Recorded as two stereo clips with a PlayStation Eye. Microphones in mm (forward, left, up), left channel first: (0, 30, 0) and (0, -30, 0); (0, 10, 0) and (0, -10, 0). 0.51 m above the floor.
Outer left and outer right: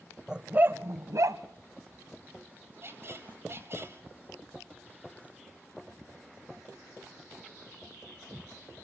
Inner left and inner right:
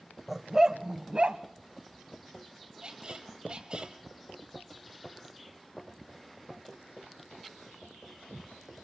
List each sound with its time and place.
0.3 s a dog barking: 10° right (ahead or behind), 0.9 m; by 1.4 s 70° right (ahead or behind), 1.4 m
2.8 s a squeak: 45° right (ahead or behind), 2.5 m